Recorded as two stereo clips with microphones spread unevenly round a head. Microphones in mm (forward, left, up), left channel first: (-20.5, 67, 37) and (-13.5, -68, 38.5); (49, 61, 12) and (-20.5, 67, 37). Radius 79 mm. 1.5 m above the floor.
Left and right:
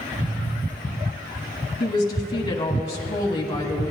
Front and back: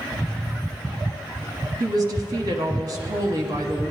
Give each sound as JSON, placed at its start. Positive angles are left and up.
{"t": 1.8, "sound": "a woman speaking", "azimuth_deg": 160, "distance_m": 1.1}